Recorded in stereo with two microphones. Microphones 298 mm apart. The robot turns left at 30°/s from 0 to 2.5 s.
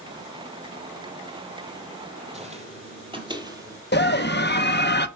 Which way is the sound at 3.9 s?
35° left (ahead or behind).